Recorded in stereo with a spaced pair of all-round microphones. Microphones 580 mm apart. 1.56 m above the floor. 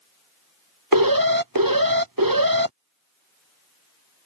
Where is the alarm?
35° right (ahead or behind).